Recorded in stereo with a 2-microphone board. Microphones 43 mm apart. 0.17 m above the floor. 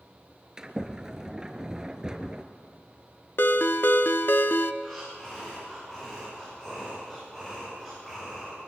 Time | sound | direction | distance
0.6 | a sliding door | 15° right (ahead or behind) | 1.2 m
3.4 | a ringtone | 60° left (ahead or behind) | 0.8 m
4.8 | breathing | 5° left (ahead or behind) | 9.5 m